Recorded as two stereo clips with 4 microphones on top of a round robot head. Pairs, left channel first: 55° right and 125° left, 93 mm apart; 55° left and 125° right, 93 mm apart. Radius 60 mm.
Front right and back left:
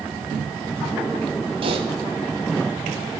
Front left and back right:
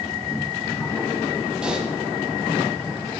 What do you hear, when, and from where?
1.6 s typing on a keyboard: 155° left, 1.2 m